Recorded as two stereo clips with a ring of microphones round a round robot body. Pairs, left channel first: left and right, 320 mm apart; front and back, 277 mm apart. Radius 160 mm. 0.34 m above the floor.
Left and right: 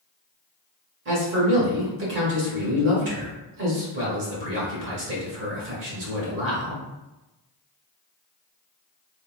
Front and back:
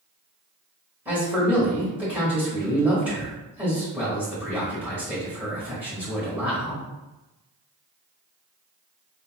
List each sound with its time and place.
1.1 s a man speaking: 100° right, 1.0 m